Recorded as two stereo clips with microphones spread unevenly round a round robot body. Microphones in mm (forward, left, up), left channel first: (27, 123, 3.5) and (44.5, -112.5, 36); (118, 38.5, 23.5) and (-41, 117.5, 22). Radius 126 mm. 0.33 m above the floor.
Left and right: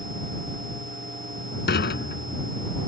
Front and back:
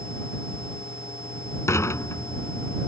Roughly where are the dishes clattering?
Ahead left.